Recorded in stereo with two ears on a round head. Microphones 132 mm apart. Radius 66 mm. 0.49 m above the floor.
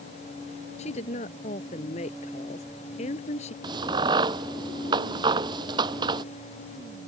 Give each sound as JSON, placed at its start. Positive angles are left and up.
{"t": 0.8, "sound": "a woman speaking", "side_deg": 50}
{"t": 3.6, "sound": "a crack", "side_deg": -30}